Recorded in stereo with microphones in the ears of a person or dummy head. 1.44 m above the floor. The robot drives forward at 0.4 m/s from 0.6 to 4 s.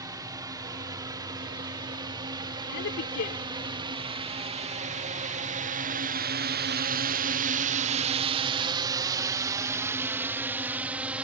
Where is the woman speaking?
60° left (ahead or behind); by 3.4 s 55° left (ahead or behind).